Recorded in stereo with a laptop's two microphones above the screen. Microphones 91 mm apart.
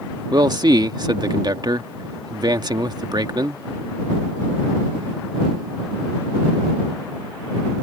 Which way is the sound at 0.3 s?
50° right (ahead or behind).